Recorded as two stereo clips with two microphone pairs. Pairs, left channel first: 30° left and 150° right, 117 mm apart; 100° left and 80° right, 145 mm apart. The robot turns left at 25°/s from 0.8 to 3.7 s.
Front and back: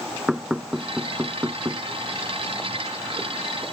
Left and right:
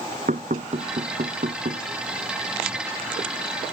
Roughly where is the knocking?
Ahead right.